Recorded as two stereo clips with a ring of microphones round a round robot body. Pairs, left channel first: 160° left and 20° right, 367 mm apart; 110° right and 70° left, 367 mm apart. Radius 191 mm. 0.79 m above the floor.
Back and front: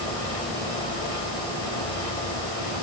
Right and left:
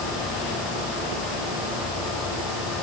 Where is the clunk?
No clunk in this recording.